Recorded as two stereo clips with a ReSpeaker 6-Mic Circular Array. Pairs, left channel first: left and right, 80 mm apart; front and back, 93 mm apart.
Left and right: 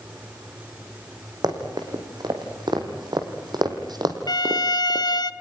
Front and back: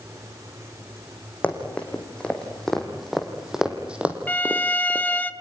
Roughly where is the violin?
Left.